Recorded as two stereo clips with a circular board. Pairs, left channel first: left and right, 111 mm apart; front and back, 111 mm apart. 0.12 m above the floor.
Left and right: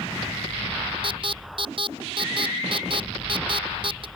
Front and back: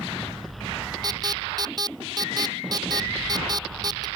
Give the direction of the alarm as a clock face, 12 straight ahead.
4 o'clock.